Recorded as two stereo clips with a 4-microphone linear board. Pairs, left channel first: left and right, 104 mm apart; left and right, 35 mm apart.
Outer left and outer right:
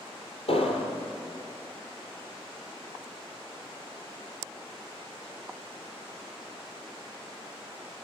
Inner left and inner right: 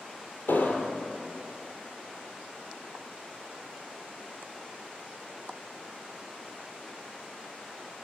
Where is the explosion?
75° left (ahead or behind), 4 m.